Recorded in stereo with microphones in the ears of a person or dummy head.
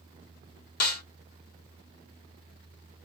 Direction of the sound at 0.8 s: 55° left (ahead or behind).